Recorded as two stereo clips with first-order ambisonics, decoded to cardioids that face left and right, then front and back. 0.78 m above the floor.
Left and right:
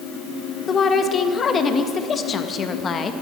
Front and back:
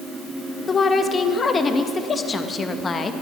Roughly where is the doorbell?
I don't hear a doorbell.